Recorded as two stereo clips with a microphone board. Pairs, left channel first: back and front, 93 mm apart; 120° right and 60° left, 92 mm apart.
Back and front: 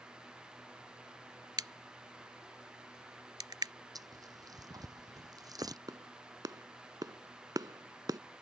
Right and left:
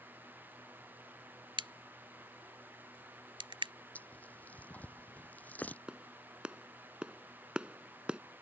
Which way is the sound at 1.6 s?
40° left.